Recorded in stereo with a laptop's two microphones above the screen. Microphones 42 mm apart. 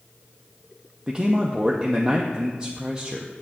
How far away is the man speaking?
About 0.8 m.